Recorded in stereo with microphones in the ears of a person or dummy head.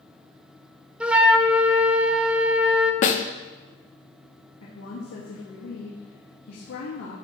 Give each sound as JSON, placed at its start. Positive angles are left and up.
{"t": 1.0, "sound": "a flute", "side_deg": -5, "distance_m": 0.7}
{"t": 3.0, "sound": "a snare drum", "side_deg": 45, "distance_m": 0.9}
{"t": 4.6, "sound": "a woman speaking", "side_deg": 80, "distance_m": 2.0}